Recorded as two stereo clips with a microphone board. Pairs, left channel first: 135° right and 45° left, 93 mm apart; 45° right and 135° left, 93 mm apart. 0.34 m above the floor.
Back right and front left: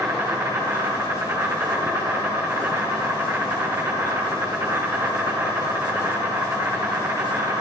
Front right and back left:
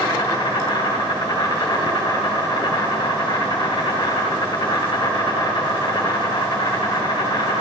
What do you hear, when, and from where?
0.0 s an insect: 5° right, 2.0 m